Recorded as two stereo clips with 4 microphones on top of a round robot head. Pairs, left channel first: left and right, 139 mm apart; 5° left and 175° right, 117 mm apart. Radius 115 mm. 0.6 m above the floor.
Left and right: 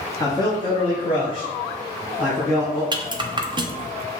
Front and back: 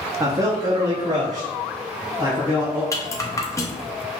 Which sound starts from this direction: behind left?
A man speaking, at 0.2 s.